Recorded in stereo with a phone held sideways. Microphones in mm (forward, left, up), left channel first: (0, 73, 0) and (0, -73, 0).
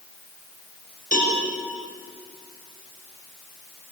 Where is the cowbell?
65° left (ahead or behind), 7.5 m.